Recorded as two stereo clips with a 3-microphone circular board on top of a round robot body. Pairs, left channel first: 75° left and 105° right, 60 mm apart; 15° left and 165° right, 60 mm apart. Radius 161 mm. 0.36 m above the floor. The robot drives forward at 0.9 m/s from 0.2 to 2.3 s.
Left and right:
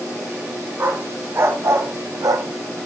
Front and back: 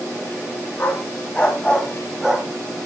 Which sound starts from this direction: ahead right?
A dog barking, at 0.8 s.